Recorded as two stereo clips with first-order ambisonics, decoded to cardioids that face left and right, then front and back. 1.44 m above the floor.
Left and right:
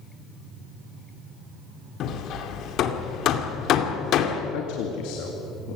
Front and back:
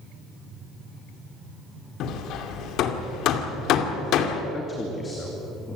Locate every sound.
2.0 s hammering: 40° left, 2 m
4.5 s a man speaking: 75° left, 2.5 m